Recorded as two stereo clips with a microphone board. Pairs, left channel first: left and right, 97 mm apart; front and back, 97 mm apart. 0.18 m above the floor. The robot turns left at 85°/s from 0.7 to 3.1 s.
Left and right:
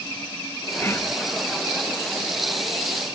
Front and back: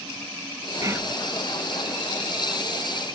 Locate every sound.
0.8 s whispering: 145° left; by 1.1 s 115° left